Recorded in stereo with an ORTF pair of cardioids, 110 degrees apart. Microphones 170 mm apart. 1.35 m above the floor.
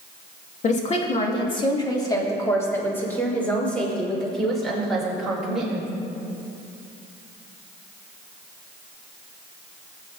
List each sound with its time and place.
0.6 s a woman speaking: 45° left, 2 m; by 5.9 s 5° right, 6 m